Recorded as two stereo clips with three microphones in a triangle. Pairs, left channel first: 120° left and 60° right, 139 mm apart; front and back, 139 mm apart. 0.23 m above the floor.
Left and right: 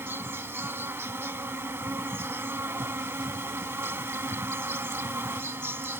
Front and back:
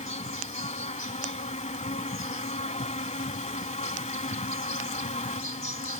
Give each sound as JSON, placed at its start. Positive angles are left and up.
{"t": 0.0, "sound": "an insect", "azimuth_deg": 10}